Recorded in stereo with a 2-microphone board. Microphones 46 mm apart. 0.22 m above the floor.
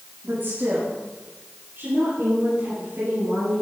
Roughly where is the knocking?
No knocking in this recording.